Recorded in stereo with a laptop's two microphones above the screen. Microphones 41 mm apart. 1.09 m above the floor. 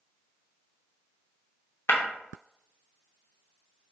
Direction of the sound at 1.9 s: 75° left (ahead or behind).